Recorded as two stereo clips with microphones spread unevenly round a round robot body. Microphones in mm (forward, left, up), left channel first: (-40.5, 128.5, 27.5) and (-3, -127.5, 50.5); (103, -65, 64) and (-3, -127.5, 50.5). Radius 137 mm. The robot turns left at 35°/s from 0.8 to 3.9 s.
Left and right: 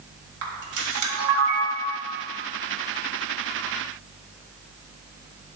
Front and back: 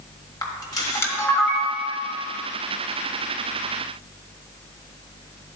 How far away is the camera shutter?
About 1.6 m.